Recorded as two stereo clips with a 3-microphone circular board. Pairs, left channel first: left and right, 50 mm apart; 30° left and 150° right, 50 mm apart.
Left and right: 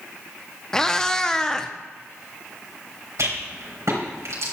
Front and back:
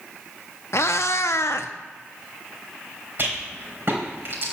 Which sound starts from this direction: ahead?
A cat meowing, at 0.7 s.